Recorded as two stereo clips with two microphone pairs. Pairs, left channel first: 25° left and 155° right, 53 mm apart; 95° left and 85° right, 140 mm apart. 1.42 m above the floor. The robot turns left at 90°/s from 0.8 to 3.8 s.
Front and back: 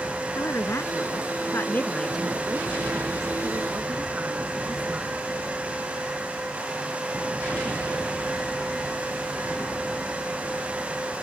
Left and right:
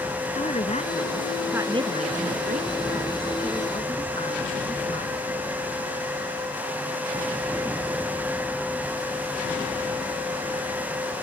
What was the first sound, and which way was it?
A woman speaking, 55° left.